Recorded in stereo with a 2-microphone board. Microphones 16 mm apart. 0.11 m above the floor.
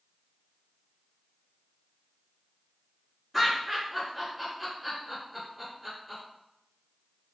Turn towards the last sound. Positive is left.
turn(degrees=-5)  # may be behind; listen again after turning